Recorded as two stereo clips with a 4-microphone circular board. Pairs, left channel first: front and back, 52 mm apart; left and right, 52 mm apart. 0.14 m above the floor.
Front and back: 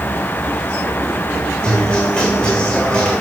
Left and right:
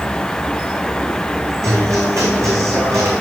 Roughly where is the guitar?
Right.